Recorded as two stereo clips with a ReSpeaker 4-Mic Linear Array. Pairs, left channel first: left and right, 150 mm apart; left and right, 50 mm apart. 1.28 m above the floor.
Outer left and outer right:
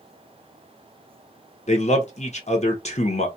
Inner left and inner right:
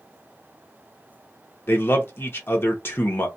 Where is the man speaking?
50° left (ahead or behind), 0.8 m.